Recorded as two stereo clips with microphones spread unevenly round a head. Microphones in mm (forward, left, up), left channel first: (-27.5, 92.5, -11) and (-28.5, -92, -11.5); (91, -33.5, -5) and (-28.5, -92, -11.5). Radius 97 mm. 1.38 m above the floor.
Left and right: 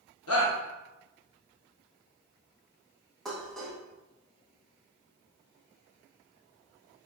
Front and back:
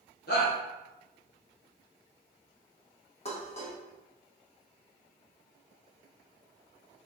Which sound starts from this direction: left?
A shout, at 0.3 s.